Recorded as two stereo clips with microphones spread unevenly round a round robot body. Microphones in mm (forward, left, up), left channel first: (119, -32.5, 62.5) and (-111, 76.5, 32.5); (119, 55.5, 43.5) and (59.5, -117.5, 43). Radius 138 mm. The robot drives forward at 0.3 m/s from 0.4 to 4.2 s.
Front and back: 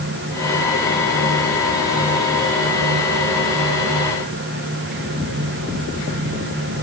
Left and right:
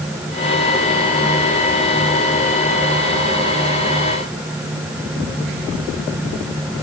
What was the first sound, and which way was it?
Only background noise.